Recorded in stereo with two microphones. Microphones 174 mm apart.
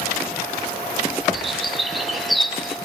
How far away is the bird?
About 2.0 m.